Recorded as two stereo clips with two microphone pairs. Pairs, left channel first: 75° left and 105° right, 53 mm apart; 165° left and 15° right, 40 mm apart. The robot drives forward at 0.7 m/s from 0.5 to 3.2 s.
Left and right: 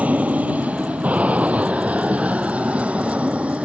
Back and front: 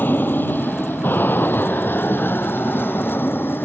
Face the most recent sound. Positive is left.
turn(degrees=-175)